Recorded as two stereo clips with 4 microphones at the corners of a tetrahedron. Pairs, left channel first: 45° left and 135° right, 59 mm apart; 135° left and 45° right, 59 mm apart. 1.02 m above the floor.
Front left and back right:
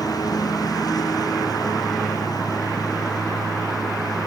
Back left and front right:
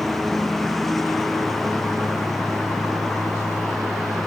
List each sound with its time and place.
0.0 s a lawn mower: 50° left